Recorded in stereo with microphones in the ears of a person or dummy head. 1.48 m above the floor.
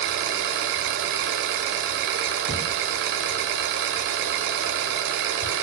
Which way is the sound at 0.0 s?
70° right (ahead or behind).